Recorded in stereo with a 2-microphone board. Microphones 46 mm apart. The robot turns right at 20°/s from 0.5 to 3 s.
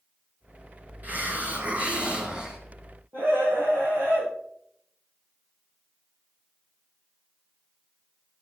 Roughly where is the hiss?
Ahead right.